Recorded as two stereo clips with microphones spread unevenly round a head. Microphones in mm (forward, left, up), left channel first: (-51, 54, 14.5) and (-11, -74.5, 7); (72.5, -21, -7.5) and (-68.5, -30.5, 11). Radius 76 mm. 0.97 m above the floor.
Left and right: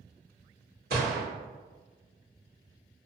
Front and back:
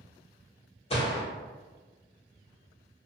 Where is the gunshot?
45° right, 1.6 m.